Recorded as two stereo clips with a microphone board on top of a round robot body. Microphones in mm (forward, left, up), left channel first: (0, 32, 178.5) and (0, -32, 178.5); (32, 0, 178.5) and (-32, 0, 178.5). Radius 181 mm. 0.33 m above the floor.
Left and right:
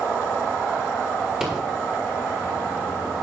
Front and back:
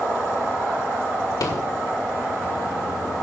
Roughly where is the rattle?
Ahead.